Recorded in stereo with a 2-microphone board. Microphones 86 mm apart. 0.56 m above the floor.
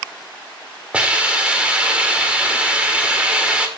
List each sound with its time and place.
0.9 s a hiss: 15° right (ahead or behind), 1.8 m